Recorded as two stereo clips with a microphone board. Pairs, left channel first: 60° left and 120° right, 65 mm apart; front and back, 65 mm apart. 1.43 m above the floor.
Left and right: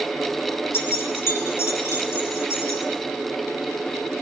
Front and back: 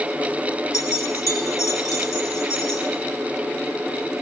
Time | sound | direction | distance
0.7 | keys jangling | 15° left | 2.0 m